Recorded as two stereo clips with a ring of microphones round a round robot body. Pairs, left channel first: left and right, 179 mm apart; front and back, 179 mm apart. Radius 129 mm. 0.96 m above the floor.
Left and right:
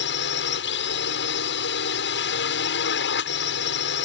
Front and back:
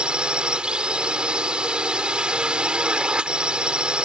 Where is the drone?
95° left.